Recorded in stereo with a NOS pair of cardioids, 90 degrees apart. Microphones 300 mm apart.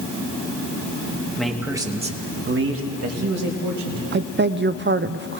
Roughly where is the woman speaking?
Ahead right.